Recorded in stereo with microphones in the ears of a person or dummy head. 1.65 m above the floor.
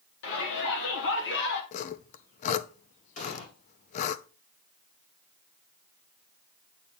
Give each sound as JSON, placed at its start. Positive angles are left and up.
{"t": 0.2, "sound": "a shout", "side_deg": 70, "distance_m": 4.0}
{"t": 1.7, "sound": "sawing", "side_deg": 40, "distance_m": 0.7}
{"t": 3.2, "sound": "an explosion", "side_deg": 40, "distance_m": 1.6}